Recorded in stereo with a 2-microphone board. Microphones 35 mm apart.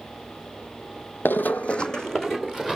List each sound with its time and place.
1.2 s running footsteps: 70° left (ahead or behind), 0.7 m; by 2.8 s 5° left (ahead or behind), 2 m